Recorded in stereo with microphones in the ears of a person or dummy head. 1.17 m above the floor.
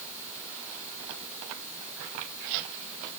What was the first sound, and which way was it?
Only background noise.